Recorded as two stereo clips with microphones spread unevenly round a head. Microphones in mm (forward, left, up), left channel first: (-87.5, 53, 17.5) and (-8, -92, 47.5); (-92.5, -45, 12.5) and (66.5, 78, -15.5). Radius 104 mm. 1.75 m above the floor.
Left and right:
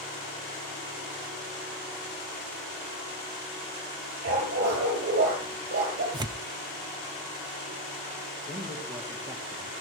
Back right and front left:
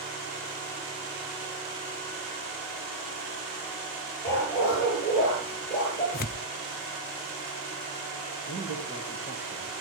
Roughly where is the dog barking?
Ahead right.